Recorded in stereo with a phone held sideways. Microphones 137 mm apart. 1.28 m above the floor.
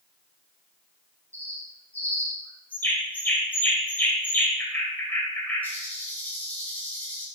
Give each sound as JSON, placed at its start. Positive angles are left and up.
{"t": 1.3, "sound": "a bird", "side_deg": 15, "distance_m": 5.0}